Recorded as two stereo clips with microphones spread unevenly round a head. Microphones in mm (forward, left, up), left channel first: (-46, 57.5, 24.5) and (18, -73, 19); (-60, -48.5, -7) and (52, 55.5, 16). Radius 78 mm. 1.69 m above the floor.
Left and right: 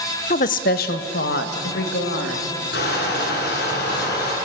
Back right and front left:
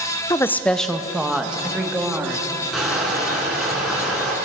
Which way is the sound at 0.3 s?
150° left.